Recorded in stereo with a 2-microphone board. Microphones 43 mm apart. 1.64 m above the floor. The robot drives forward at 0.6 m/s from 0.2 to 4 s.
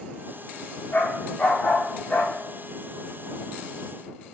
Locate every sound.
0.9 s a dog barking: 35° left (ahead or behind), 2 m; by 2.3 s 25° left (ahead or behind), 2.5 m